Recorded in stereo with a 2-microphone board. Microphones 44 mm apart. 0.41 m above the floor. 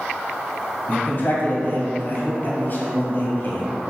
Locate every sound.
0.9 s a man speaking: 50° left (ahead or behind), 1.9 m